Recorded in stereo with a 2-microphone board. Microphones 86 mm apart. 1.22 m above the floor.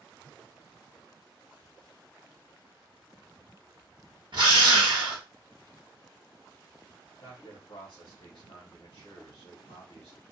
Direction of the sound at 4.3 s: 65° right (ahead or behind).